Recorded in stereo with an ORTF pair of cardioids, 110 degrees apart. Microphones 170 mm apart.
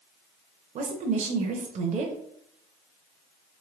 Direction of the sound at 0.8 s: 45° right.